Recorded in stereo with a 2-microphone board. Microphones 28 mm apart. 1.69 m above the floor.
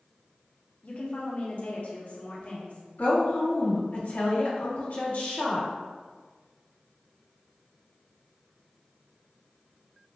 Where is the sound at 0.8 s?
50° left (ahead or behind), 0.9 m.